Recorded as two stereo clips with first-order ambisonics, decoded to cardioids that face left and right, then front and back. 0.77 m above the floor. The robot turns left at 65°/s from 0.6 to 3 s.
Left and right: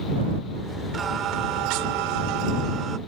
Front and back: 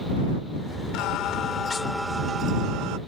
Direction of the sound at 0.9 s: 20° right.